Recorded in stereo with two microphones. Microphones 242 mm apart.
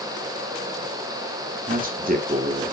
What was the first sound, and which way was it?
A man speaking, 35° right (ahead or behind).